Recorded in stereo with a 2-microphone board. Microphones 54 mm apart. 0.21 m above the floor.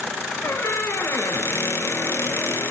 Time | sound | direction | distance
0.4 | a squeak | 55° left (ahead or behind) | 0.5 m